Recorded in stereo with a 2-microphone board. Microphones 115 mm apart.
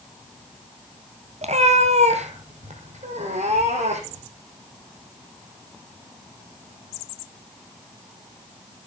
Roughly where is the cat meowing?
Right.